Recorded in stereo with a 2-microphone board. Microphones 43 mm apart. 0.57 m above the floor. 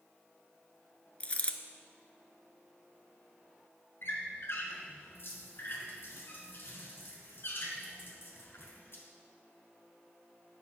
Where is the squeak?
55° left (ahead or behind), 1.9 m.